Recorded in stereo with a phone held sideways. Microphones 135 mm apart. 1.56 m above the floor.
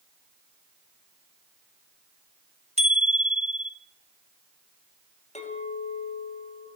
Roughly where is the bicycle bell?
Right.